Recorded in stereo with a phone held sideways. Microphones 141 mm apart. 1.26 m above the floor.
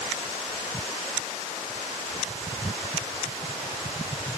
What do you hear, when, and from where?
Only background noise.